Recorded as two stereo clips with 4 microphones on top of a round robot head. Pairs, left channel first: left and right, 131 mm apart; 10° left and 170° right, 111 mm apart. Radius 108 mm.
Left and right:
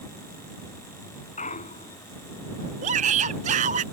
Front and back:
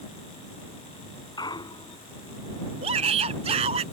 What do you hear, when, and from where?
1.4 s a clunk: 60° left
2.8 s a shout: 130° right